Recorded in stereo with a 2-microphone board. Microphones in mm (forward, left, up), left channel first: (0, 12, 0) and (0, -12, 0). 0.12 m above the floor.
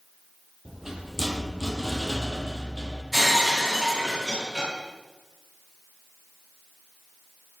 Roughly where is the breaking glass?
Centre.